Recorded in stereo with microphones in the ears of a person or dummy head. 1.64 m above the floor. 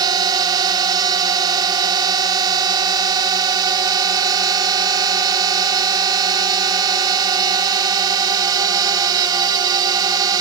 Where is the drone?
30° right (ahead or behind).